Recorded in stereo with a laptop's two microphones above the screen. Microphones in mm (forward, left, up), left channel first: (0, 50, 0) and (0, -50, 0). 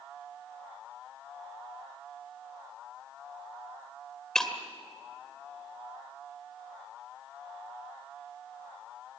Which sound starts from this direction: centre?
Breaking glass, at 4.3 s.